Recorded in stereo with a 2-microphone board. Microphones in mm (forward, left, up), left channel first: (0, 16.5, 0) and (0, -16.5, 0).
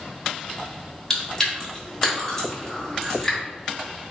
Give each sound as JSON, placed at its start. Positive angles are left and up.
{"t": 1.1, "sound": "chewing", "side_deg": 15, "distance_m": 1.2}